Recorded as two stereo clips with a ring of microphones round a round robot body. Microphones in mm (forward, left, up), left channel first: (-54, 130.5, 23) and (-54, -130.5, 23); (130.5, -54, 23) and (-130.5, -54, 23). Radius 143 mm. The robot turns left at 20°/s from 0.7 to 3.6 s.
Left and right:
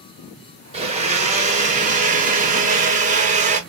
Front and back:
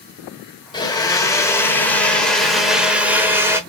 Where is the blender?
55° right, 1.1 m; by 3.6 s 110° right, 1.1 m.